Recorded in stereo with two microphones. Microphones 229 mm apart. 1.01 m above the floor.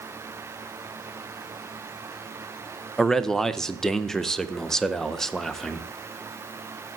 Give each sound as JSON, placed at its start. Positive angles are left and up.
{"t": 3.0, "sound": "a man speaking", "side_deg": 0, "distance_m": 0.5}